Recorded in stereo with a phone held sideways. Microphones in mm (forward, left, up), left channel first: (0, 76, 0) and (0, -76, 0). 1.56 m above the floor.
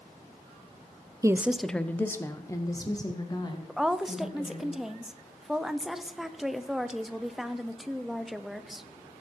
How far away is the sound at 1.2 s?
About 0.5 m.